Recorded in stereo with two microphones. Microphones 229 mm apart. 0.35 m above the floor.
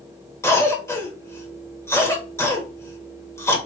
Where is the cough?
10° left (ahead or behind), 0.9 m.